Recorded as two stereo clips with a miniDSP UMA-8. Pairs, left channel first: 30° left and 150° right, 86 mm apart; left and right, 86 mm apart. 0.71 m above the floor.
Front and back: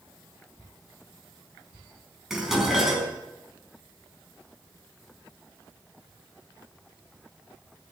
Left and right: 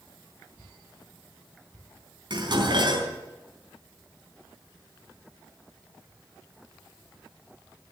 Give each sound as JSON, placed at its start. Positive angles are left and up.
{"t": 2.3, "sound": "dishes clattering", "azimuth_deg": -65, "distance_m": 4.0}